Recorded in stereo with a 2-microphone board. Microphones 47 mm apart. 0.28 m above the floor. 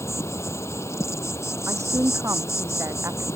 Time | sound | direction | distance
0.0 | an insect | 75° left (ahead or behind) | ?
1.7 | a woman speaking | 80° right | ?